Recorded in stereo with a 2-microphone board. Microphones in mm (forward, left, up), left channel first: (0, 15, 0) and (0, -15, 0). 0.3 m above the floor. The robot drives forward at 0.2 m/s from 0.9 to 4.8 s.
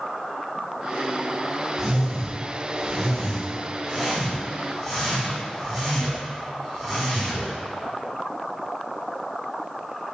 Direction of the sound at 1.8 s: 5° right (ahead or behind).